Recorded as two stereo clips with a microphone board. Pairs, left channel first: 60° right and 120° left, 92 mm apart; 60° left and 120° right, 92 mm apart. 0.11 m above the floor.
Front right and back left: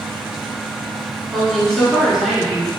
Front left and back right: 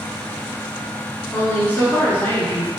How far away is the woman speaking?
About 1.1 m.